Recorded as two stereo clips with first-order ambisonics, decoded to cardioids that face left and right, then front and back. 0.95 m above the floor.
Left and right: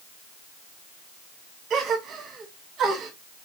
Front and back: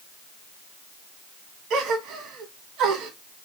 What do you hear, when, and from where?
1.7 s a gasp: 140° right, 1.0 m